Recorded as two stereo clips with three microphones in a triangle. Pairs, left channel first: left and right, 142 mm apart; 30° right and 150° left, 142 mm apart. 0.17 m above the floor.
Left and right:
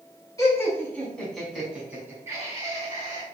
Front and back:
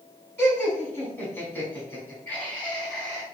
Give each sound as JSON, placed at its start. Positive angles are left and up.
{"t": 0.4, "sound": "laughter", "azimuth_deg": 35, "distance_m": 1.7}